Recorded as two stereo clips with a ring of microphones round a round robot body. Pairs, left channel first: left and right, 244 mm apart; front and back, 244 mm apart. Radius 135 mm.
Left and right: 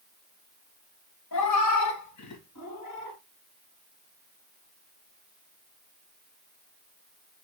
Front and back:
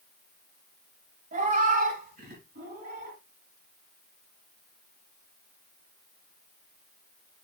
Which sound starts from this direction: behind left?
A cat meowing, at 1.3 s.